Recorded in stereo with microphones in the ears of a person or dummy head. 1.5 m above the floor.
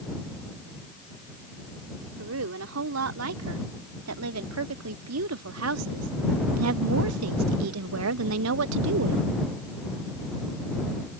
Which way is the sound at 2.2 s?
85° right.